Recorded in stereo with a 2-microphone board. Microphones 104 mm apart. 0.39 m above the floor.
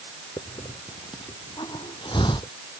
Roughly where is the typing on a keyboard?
No typing on a keyboard in this recording.